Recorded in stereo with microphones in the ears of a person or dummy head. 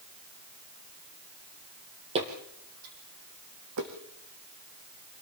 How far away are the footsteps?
About 2 m.